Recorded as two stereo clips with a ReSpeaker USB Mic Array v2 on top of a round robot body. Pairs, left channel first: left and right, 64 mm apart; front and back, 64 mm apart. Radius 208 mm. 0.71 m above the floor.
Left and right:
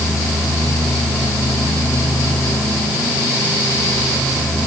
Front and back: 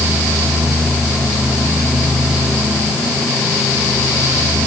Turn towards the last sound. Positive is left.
No sound to turn to.